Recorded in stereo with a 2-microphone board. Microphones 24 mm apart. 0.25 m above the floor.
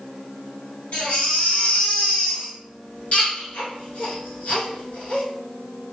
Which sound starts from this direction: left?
A baby crying, at 0.9 s.